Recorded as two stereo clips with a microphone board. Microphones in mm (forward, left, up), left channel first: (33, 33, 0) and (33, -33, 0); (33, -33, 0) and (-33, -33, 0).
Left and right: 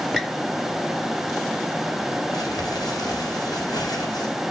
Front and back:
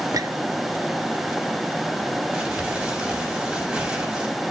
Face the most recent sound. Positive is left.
turn(degrees=105)